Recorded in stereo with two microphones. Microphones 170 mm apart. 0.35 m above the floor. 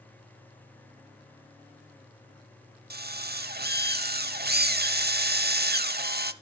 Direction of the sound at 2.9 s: 60° right (ahead or behind).